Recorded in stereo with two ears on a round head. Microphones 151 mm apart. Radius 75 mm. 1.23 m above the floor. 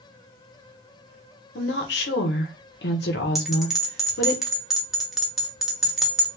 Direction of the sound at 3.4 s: Centre (ahead or behind).